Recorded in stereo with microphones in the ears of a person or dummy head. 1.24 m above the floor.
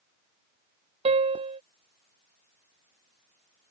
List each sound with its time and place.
1.1 s a piano: 30° right (ahead or behind)